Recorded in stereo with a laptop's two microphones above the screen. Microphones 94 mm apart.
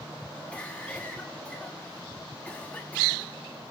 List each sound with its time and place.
0.5 s a cough: 15° left (ahead or behind), 1.4 m